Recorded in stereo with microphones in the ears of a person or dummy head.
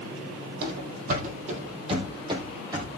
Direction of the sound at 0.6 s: 60° right (ahead or behind).